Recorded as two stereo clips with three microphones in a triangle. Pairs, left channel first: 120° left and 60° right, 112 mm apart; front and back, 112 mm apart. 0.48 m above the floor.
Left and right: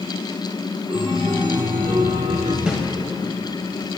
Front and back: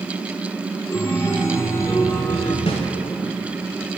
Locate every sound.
0.9 s a chime: 55° right, 1.2 m
2.7 s a snare drum: 20° left, 1.6 m